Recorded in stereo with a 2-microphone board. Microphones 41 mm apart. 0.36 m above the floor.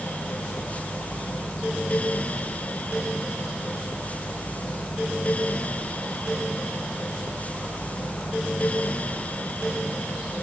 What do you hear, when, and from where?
Only background noise.